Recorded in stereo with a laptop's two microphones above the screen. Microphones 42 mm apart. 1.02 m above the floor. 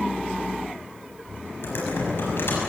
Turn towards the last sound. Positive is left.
turn(degrees=60)  # may be behind; listen again after turning